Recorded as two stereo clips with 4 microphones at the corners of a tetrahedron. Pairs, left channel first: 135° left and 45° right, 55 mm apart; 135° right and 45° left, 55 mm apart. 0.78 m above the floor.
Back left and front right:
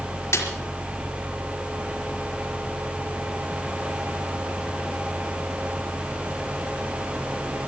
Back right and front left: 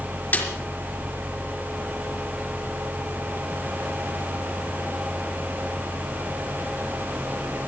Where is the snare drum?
170° left, 4.5 m.